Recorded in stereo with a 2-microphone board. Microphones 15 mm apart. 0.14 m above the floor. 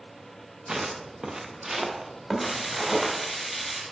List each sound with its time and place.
0.7 s footsteps: 60° right (ahead or behind), 1.1 m; by 3.1 s 20° right (ahead or behind), 3 m
2.4 s frying: 15° right (ahead or behind), 2.5 m